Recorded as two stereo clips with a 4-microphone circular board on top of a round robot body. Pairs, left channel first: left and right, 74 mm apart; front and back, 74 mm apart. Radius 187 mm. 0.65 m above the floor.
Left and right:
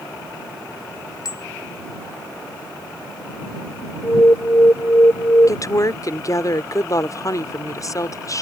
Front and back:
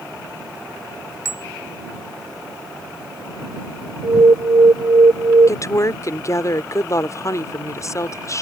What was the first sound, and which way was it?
A bicycle bell, 130° left.